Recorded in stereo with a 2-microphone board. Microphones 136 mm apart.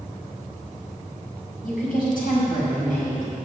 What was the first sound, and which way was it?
A woman speaking, 85° left.